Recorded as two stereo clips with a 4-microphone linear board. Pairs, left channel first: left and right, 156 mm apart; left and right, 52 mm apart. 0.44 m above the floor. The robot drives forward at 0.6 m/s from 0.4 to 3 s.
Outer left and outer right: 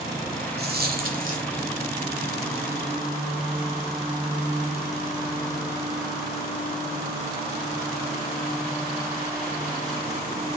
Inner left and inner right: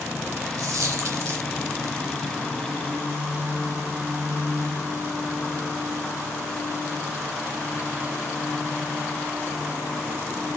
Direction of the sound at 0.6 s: 75° right (ahead or behind).